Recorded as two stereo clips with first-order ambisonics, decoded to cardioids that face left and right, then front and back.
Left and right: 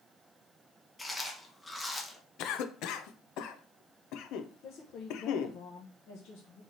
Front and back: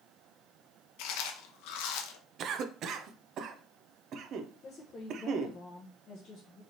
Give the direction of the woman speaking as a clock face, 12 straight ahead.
10 o'clock.